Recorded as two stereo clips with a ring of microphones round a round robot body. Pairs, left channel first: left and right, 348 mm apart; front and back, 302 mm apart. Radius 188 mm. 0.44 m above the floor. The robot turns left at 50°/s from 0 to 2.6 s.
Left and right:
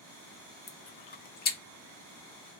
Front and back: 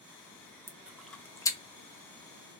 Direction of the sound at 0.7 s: 105° left.